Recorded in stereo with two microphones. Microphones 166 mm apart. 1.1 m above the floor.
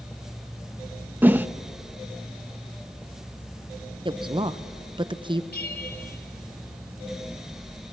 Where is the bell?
90° left, 3.5 m.